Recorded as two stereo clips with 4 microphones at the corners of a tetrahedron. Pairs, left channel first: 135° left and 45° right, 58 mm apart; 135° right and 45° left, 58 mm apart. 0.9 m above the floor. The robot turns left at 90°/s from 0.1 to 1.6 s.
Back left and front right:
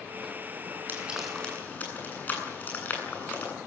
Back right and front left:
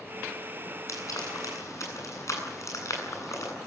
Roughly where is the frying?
Right.